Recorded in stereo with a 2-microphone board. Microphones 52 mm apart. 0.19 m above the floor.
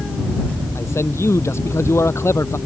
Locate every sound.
0.8 s a man speaking: 60° left (ahead or behind)